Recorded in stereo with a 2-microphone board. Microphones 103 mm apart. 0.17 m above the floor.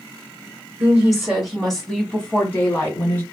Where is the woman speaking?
15° right (ahead or behind), 1.2 m; by 3.2 s 25° left (ahead or behind), 1.5 m.